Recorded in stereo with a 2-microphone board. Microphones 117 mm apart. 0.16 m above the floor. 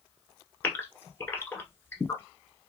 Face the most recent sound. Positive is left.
turn(degrees=20)  # may be behind; listen again after turning